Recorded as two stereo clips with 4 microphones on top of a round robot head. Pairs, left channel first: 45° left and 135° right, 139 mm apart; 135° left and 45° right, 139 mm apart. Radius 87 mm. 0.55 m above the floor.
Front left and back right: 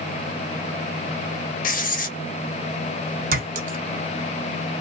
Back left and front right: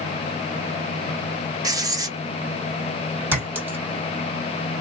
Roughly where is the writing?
Ahead.